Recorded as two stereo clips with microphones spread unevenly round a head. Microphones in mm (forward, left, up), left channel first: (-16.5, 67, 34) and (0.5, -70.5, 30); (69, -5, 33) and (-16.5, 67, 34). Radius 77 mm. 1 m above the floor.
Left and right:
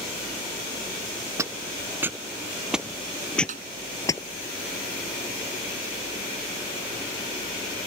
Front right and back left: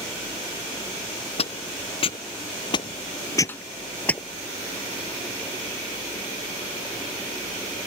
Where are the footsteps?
10° right; by 4.2 s 40° left.